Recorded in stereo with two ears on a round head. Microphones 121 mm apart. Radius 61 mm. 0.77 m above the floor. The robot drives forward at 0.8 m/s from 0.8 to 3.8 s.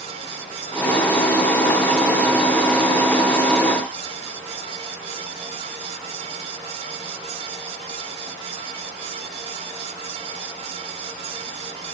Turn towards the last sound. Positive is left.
No sound to turn to.